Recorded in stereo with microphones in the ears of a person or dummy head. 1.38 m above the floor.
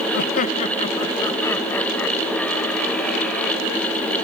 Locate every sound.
0.1 s laughter: 60° left (ahead or behind), 0.7 m; by 3.6 s 5° left (ahead or behind), 3 m